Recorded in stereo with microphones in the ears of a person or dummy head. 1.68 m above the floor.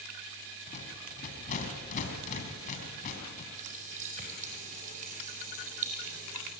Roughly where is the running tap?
Right.